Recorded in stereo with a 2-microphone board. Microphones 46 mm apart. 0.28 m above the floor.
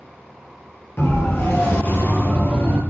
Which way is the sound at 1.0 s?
65° left (ahead or behind).